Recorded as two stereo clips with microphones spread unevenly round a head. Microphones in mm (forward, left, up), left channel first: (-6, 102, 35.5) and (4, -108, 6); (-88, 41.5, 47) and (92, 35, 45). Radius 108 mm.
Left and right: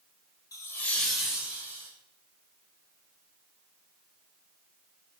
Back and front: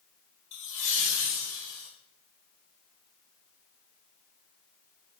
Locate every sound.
0.5 s laughter: 170° left, 1.5 m; by 1.9 s 165° right, 2.5 m